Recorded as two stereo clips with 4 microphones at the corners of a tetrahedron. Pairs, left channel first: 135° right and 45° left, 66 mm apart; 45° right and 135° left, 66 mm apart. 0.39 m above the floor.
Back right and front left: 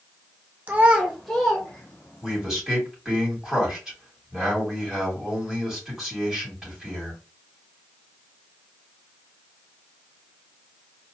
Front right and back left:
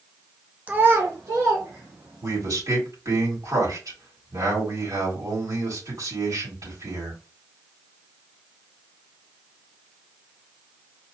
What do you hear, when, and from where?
0.7 s a child speaking: 85° left, 0.7 m; by 2.4 s 155° left, 1.9 m
2.2 s a man speaking: 125° left, 3 m